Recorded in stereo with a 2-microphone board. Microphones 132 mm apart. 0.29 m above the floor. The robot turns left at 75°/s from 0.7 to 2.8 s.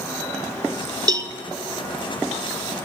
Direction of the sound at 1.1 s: 30° right (ahead or behind).